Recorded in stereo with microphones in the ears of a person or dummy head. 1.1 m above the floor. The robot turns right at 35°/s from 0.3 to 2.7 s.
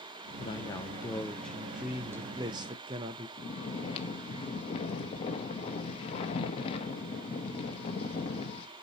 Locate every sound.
0.4 s a man speaking: 145° left, 0.5 m; by 3.3 s 135° right, 0.5 m
3.4 s snoring: 40° left (ahead or behind), 1.0 m